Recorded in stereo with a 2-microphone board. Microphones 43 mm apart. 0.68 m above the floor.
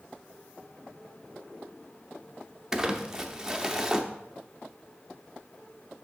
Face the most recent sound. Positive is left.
turn(degrees=-10)  # may be behind; listen again after turning